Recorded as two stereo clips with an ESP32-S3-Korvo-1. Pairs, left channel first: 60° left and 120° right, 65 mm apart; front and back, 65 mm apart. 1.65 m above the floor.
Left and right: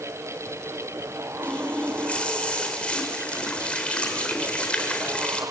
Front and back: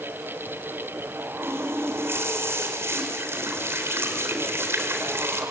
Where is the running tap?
130° left, 4 m.